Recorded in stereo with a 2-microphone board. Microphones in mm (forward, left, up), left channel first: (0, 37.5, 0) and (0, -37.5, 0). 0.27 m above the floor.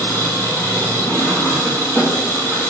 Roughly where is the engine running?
Left.